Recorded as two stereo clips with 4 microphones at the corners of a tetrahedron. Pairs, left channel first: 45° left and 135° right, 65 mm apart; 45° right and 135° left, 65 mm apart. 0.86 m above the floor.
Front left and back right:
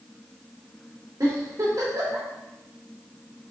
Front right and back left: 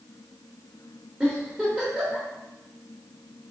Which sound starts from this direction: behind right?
A giggle, at 1.2 s.